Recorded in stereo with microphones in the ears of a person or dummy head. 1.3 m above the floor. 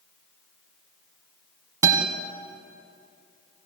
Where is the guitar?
20° right (ahead or behind), 1.7 m.